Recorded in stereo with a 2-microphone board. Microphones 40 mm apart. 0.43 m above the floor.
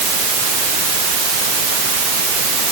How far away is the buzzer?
No buzzer in this recording.